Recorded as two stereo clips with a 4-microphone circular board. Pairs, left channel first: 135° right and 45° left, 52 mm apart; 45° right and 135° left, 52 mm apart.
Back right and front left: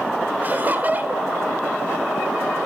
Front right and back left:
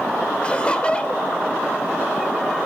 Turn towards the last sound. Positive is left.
turn(degrees=10)